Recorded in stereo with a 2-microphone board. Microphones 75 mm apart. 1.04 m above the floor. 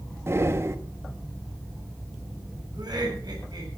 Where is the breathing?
35° right (ahead or behind), 1.2 m.